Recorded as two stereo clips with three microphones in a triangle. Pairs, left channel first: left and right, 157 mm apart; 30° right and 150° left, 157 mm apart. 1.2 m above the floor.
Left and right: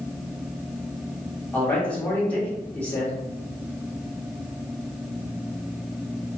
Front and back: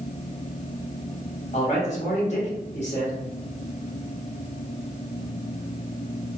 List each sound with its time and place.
1.5 s a man speaking: 10° left, 1.4 m